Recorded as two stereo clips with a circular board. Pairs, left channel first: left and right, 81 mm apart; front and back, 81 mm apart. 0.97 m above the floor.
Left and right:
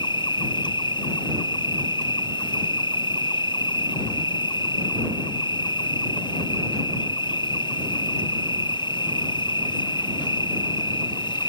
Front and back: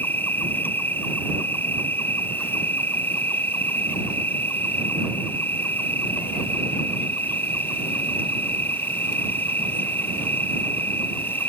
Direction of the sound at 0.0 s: 65° left.